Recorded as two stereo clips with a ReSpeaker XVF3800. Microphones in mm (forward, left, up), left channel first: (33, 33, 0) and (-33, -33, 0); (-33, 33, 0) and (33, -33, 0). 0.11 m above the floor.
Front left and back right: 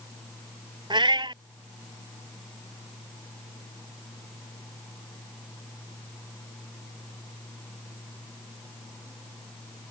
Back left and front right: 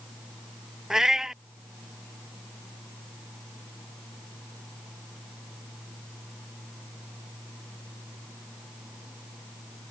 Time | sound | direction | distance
0.9 | a cat meowing | 130° right | ?